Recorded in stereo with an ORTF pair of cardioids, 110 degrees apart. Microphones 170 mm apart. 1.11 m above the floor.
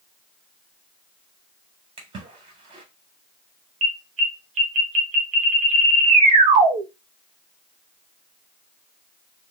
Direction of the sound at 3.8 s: 45° right.